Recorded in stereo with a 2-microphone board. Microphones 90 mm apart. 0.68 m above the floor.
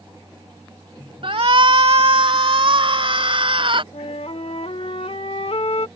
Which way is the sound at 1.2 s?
70° right (ahead or behind).